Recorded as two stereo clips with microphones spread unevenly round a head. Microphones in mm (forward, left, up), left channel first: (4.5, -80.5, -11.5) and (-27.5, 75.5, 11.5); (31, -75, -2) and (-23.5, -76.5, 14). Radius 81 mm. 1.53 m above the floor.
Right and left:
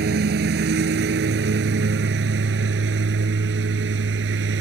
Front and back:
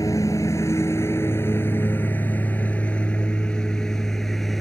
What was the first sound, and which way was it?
A lawn mower, 75° left.